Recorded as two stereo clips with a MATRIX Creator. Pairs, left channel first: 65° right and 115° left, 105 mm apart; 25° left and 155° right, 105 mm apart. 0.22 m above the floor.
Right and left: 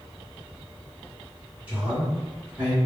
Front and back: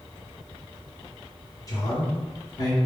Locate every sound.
1.7 s a man speaking: 45° left, 2.0 m